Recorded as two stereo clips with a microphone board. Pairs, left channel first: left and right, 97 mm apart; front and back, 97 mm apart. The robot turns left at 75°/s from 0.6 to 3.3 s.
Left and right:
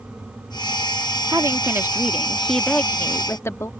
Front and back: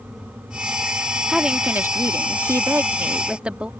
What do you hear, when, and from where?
1.3 s a woman speaking: 100° right; by 3.7 s 110° left